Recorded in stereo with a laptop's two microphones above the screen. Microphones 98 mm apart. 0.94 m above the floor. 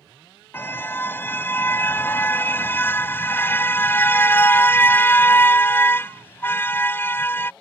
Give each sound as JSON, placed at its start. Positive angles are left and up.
{"t": 0.5, "sound": "a car horn", "side_deg": 20}